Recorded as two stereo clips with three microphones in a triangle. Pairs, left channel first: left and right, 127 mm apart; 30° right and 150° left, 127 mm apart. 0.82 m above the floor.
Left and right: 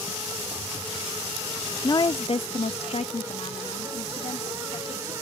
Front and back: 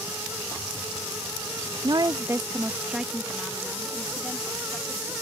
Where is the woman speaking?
130° left; by 5.1 s 50° left.